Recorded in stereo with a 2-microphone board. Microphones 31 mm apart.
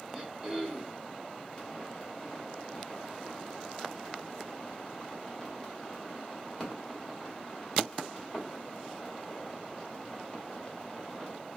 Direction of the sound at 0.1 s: 20° right (ahead or behind).